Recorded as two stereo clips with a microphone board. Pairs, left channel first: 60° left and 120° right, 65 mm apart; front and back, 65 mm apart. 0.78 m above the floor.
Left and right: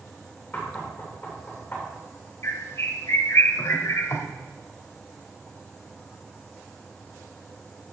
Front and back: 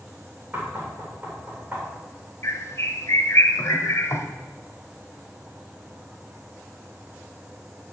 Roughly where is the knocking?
Behind left.